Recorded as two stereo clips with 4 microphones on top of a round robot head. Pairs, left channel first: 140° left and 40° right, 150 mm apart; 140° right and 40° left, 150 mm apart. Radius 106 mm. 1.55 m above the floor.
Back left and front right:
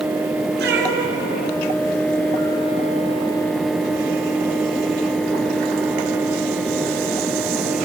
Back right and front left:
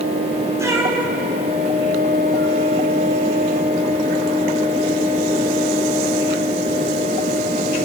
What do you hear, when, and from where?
0.6 s a cat meowing: 30° right, 3 m; by 2.6 s 55° right, 3 m